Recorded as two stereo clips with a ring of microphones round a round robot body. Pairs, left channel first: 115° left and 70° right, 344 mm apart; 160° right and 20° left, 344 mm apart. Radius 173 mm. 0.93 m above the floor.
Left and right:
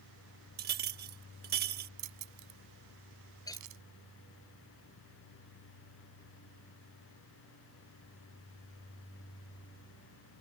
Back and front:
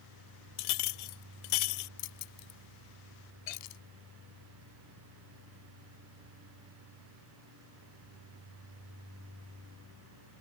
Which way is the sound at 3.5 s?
165° right.